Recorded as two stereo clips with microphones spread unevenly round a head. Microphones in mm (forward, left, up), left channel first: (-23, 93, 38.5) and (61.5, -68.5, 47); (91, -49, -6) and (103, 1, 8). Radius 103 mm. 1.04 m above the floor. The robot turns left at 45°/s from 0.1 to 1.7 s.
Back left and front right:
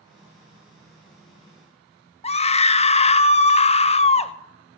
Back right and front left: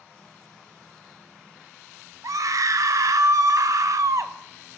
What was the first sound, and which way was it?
A scream, 70° left.